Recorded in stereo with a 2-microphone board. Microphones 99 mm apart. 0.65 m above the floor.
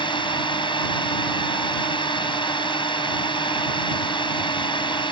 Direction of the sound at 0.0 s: 60° left (ahead or behind).